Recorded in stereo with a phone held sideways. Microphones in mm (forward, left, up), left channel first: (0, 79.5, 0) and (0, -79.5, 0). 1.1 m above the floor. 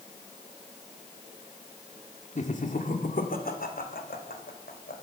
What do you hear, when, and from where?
2.4 s laughter: 50° left (ahead or behind), 2.5 m; by 4.9 s 85° left, 4.5 m